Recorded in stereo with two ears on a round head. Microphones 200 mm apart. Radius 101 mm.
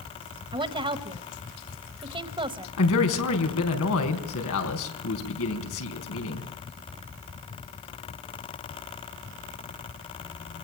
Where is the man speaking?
75° left (ahead or behind), 4 m.